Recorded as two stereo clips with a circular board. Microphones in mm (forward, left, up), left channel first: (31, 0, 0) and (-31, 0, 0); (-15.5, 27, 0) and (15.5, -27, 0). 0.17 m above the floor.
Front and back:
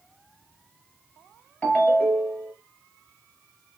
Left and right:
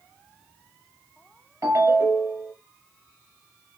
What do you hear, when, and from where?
1.6 s a ringtone: 70° right, 2 m